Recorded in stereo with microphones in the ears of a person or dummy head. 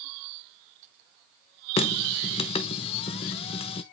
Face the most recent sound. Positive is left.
turn(degrees=30)  # may be behind; listen again after turning